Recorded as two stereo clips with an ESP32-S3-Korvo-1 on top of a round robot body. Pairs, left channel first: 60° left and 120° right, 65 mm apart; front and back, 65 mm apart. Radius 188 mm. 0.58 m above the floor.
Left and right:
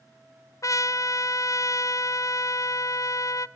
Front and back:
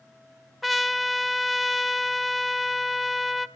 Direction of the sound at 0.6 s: 90° left.